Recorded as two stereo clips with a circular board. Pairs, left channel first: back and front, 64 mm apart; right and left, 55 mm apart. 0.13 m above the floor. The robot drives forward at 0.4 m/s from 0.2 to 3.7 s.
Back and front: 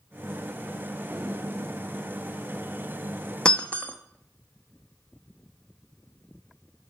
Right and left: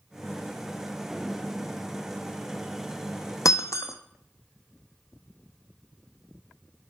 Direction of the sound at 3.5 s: 105° right.